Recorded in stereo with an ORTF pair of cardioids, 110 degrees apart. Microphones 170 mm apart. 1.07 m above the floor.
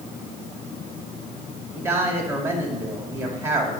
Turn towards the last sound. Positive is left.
turn(degrees=-15)